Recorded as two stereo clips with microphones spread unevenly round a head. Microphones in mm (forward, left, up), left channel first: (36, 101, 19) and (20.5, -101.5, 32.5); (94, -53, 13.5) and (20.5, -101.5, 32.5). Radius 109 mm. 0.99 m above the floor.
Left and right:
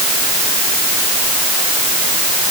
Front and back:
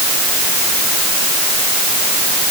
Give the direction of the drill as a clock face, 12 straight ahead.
No drill in this recording.